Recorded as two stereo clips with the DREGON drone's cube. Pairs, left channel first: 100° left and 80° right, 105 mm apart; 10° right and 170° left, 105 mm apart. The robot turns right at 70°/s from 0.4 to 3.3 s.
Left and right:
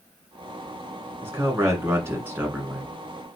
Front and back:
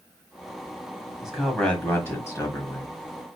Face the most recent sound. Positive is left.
turn(degrees=30)